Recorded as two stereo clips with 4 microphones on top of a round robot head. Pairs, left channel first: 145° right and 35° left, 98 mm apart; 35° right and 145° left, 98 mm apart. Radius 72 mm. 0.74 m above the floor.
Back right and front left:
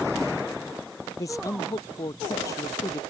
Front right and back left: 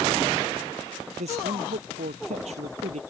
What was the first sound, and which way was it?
A man speaking, 155° left.